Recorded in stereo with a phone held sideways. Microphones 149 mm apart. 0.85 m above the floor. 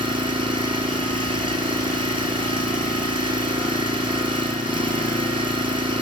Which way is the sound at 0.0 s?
35° right (ahead or behind).